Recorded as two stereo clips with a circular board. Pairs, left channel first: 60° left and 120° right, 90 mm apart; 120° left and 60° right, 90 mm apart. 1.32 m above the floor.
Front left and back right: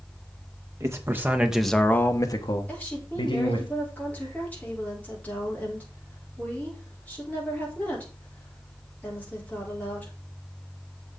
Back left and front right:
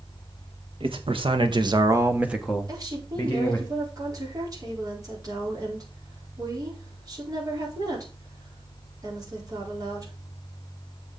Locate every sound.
0.8 s a man speaking: 65° right, 1.8 m; by 3.7 s 60° left, 2.5 m
2.7 s a woman speaking: 15° right, 4.5 m